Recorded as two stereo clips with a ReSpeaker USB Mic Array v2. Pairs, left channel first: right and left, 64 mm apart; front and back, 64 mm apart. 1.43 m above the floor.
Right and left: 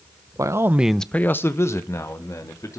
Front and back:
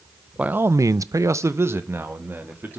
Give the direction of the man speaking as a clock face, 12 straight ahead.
8 o'clock.